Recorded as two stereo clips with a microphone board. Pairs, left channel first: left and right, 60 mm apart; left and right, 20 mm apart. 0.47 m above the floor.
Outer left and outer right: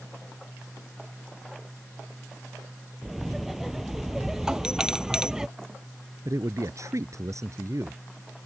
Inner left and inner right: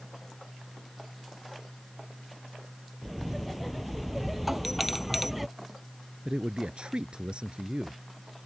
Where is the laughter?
Centre (ahead or behind); by 5.5 s 10° right (ahead or behind).